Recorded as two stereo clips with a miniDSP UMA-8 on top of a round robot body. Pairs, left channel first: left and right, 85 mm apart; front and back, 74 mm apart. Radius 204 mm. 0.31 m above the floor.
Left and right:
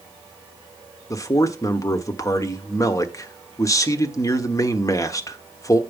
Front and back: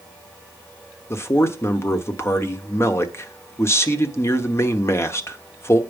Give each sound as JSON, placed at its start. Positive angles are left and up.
{"t": 1.1, "sound": "a man speaking", "azimuth_deg": 45, "distance_m": 1.4}